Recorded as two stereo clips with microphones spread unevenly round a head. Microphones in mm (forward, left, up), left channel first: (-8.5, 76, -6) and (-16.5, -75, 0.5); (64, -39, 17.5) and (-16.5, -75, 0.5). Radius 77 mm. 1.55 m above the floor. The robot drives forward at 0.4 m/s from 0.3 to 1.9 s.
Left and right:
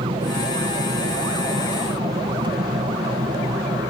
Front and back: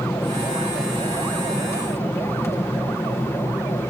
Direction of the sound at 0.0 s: 40° right.